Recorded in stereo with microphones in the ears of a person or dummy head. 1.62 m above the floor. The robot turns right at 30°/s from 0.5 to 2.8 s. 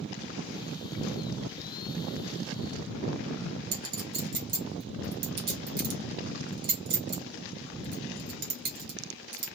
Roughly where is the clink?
Right.